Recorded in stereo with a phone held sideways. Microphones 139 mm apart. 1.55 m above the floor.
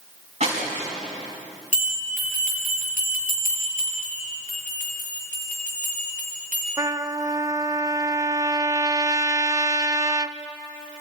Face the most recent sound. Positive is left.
turn(degrees=-25)  # may be behind; listen again after turning